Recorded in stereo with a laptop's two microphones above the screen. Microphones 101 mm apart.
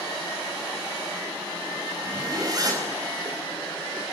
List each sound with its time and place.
2.0 s a zipper: 40° right (ahead or behind), 5 m